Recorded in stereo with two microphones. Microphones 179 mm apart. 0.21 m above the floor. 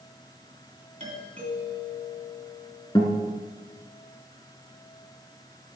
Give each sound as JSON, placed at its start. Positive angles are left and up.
{"t": 1.0, "sound": "a doorbell", "side_deg": -35, "distance_m": 3.0}
{"t": 3.0, "sound": "a guitar", "side_deg": 25, "distance_m": 1.9}